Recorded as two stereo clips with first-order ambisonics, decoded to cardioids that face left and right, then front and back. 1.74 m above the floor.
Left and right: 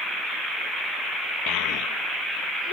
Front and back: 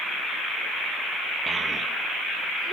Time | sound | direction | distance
1.5 | a child speaking | 105° left | ?